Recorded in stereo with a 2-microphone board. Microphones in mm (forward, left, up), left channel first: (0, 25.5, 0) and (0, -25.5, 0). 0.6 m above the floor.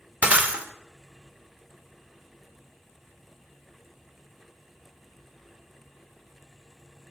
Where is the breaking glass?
30° right (ahead or behind), 1.1 m.